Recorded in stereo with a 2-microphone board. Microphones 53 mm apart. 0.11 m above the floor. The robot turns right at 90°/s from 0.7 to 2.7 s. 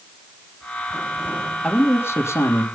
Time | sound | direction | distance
1.6 | a man speaking | 20° left | 3 m